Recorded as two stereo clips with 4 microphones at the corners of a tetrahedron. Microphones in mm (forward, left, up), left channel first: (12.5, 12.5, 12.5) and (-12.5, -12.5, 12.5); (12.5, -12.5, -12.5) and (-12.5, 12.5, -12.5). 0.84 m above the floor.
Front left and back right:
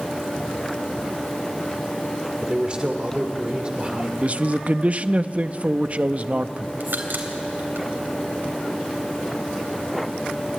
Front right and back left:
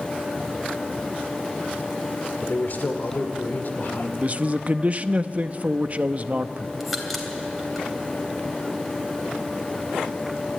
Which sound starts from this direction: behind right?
A crack, at 6.8 s.